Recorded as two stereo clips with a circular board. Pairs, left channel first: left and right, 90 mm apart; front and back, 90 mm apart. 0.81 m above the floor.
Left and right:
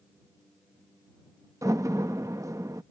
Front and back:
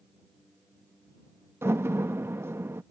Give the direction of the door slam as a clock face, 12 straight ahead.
4 o'clock.